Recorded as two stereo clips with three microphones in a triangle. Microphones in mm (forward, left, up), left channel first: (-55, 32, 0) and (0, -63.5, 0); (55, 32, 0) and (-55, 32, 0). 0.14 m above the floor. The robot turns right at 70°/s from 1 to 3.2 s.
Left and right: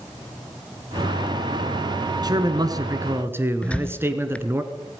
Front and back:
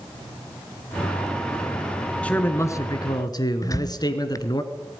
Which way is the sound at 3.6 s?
45° left.